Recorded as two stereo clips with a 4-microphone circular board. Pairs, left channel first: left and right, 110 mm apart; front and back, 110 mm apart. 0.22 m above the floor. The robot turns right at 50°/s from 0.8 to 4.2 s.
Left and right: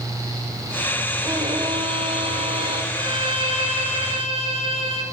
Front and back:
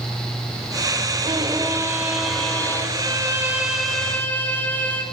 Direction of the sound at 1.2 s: 145° right.